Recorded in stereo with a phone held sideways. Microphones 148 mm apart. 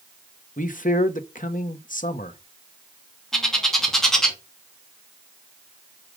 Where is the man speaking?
65° left (ahead or behind), 1.3 m.